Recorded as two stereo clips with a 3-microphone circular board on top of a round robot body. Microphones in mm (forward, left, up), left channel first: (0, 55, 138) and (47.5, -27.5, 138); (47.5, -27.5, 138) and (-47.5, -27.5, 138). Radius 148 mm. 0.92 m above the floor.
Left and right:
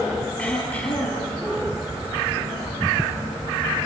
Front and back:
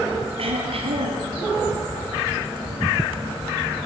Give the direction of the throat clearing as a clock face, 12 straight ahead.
5 o'clock.